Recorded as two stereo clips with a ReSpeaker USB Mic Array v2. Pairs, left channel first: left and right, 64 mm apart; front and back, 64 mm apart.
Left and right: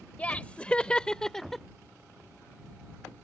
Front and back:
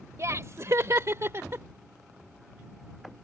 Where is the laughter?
155° left; by 1.6 s 175° left.